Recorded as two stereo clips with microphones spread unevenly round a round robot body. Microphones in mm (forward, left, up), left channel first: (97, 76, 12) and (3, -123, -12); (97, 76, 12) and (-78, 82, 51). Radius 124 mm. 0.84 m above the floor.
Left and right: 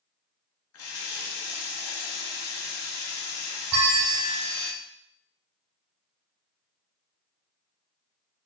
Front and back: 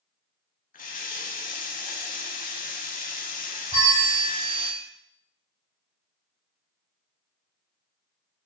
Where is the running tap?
45° left, 0.6 m.